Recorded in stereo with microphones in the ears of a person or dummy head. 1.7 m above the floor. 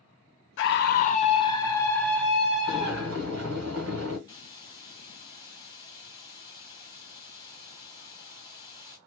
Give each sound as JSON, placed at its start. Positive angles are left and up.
{"t": 0.6, "sound": "a scream", "side_deg": 70, "distance_m": 0.6}
{"t": 2.7, "sound": "boiling", "side_deg": -65, "distance_m": 1.5}
{"t": 4.3, "sound": "a hiss", "side_deg": 20, "distance_m": 1.5}